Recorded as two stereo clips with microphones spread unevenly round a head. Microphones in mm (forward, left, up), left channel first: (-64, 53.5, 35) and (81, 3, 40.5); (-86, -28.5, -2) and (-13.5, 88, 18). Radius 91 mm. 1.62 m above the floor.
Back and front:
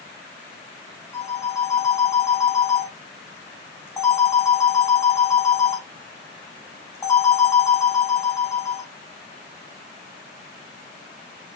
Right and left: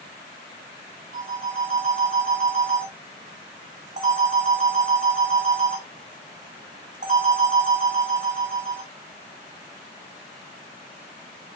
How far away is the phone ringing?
About 3.5 m.